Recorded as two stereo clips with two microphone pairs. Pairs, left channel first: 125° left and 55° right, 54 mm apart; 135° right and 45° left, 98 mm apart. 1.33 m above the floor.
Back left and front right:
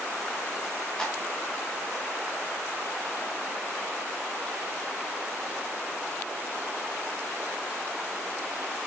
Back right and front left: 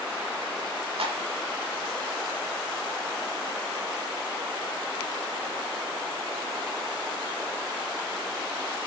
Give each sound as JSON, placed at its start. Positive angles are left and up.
{"t": 1.0, "sound": "a clap", "azimuth_deg": 50, "distance_m": 3.0}